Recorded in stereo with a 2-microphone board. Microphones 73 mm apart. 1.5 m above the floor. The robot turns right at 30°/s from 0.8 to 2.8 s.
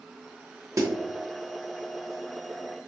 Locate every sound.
0.8 s a snare drum: 45° right (ahead or behind), 0.8 m; by 0.9 s 40° right (ahead or behind), 0.8 m